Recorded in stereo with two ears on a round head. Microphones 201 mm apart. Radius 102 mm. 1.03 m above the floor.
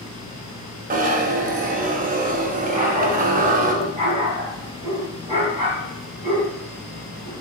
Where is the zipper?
35° right (ahead or behind), 0.9 m.